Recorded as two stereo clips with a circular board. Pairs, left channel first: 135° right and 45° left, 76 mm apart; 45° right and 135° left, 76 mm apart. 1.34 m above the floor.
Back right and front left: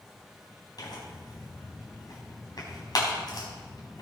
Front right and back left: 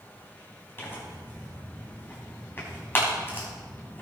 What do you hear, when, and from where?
0.8 s tearing paper: 105° right, 4 m